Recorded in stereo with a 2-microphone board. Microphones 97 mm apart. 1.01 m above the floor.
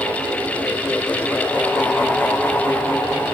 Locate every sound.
Only background noise.